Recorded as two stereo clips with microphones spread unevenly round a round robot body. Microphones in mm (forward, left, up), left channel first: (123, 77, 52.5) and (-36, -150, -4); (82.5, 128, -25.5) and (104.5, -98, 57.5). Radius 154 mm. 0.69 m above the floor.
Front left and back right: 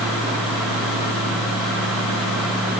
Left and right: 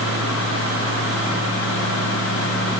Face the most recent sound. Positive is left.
No sound to turn to.